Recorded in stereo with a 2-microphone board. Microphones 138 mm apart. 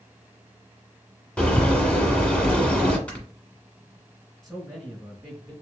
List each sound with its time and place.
1.4 s a bird: 10° left (ahead or behind), 1.3 m
3.1 s snoring: 10° left (ahead or behind), 1.8 m
4.4 s a man speaking: 5° left (ahead or behind), 2.0 m